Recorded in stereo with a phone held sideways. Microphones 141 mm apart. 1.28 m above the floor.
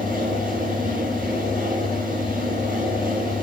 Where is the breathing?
No breathing in this recording.